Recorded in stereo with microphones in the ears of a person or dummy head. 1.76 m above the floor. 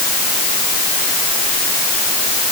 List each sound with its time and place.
Only background noise.